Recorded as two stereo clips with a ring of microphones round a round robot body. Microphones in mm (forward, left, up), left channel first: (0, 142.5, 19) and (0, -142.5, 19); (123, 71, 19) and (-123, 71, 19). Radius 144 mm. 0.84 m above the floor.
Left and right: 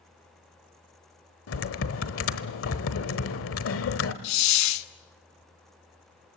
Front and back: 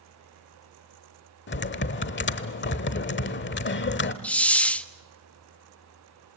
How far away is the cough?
No cough in this recording.